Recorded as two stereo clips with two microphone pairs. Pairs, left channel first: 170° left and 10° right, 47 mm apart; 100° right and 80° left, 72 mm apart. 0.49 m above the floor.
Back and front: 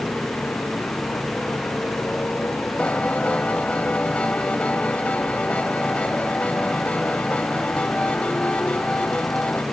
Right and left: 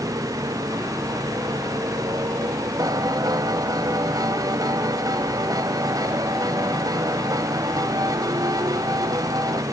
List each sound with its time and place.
0.0 s a motorcycle: 115° left
2.8 s a piano: 105° left